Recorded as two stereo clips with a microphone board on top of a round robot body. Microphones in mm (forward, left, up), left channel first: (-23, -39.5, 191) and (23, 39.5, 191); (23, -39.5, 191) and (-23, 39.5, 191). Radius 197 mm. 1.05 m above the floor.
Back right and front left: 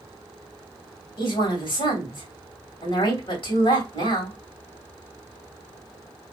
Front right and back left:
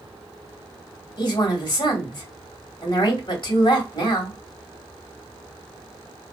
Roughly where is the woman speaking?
Right.